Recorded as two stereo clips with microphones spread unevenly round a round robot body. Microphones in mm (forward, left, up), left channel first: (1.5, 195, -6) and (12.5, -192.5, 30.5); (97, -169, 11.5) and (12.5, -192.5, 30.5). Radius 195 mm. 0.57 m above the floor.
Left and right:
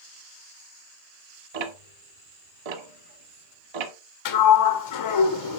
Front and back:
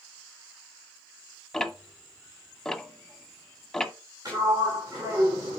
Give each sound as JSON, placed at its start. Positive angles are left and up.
{"t": 1.5, "sound": "ticking", "azimuth_deg": -70, "distance_m": 1.3}
{"t": 4.2, "sound": "a sliding door", "azimuth_deg": 125, "distance_m": 1.8}